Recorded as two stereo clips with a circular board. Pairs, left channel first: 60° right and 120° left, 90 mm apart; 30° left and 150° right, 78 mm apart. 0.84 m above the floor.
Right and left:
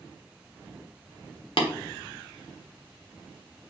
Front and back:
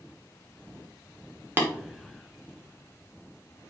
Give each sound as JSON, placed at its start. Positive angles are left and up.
{"t": 1.6, "sound": "tapping", "azimuth_deg": -85, "distance_m": 1.2}